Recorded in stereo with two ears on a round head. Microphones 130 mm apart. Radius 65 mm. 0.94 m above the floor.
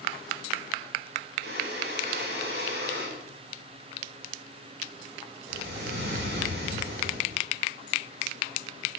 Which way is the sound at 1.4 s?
75° right (ahead or behind).